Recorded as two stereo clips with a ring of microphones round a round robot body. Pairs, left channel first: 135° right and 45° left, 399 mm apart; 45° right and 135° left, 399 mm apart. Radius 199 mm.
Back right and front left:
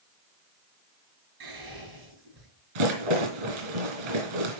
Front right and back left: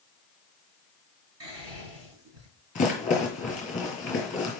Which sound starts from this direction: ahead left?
A rattle, at 2.8 s.